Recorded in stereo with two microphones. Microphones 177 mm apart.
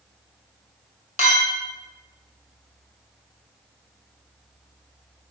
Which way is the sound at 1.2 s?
40° left (ahead or behind).